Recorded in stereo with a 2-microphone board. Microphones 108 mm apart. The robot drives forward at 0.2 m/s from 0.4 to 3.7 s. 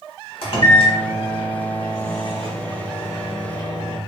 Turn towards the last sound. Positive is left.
turn(degrees=45)  # may be behind; listen again after turning